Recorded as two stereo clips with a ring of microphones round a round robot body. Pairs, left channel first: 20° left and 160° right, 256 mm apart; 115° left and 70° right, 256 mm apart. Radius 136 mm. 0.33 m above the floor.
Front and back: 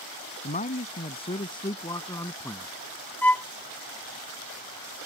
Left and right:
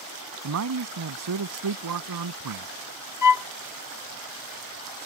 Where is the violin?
105° left.